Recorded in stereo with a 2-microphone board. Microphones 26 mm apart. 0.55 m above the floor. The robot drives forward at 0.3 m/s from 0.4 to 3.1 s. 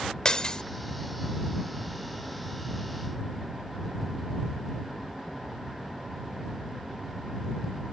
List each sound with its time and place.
0.2 s breaking glass: 30° left (ahead or behind)